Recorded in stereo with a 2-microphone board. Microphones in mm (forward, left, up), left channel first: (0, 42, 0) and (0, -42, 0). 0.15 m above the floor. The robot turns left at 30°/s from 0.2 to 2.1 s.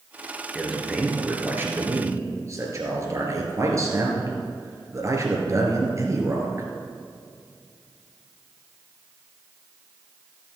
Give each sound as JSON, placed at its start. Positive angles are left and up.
{"t": 0.6, "sound": "a man speaking", "azimuth_deg": 5, "distance_m": 2.5}